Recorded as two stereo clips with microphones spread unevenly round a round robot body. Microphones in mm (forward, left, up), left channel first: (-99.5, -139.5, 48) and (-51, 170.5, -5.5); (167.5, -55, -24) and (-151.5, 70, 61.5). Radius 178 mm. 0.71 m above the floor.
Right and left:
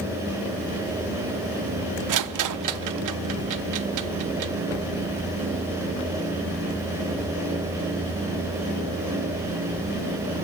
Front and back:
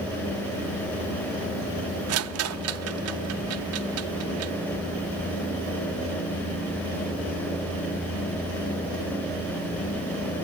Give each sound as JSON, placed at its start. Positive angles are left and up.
{"t": 2.1, "sound": "a rattle", "azimuth_deg": 105, "distance_m": 0.8}